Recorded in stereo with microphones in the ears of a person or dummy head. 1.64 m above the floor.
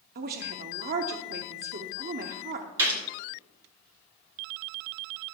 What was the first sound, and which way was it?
A woman speaking, 50° right (ahead or behind).